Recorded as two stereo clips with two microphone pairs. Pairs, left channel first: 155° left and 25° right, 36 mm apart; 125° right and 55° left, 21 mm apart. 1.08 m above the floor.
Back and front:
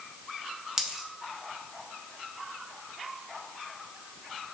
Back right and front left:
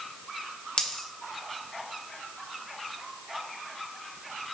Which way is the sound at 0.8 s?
100° right.